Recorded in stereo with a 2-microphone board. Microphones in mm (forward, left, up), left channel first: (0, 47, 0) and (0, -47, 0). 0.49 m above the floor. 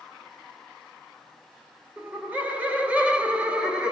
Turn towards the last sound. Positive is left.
turn(degrees=-10)  # may be behind; listen again after turning